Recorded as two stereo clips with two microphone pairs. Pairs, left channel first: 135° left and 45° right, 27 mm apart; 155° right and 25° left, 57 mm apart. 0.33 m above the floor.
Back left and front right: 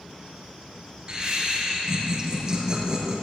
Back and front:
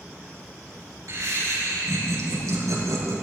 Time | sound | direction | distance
1.1 | laughter | 10° left | 5 m